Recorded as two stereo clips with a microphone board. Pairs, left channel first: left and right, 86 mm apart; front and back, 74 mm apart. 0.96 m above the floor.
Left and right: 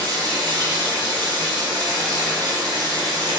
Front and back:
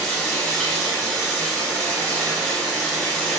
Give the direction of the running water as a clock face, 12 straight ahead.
3 o'clock.